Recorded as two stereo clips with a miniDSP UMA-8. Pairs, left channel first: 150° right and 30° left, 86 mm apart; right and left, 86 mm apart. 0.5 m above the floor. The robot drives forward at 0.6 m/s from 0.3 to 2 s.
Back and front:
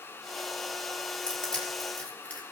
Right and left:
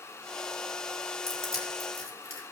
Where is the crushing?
70° right, 4 m; by 2.4 s 75° right, 4 m.